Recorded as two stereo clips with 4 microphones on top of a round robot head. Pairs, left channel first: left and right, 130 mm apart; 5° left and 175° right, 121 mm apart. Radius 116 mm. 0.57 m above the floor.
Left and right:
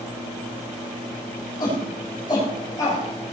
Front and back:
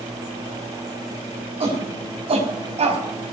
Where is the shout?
150° left, 6 m; by 3.0 s 155° left, 4.5 m.